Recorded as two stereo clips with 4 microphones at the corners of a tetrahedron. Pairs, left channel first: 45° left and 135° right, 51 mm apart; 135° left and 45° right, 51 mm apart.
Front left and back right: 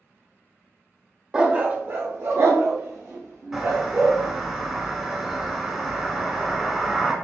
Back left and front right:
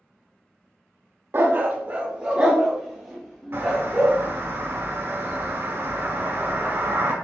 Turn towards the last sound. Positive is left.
turn(degrees=-60)